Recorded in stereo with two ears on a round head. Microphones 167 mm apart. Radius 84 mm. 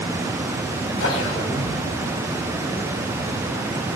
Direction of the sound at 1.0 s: 85° left.